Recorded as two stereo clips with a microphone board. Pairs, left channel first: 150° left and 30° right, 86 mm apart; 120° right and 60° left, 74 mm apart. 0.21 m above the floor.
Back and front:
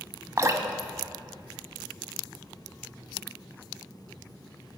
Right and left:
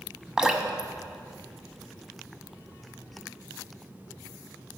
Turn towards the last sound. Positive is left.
turn(degrees=-10)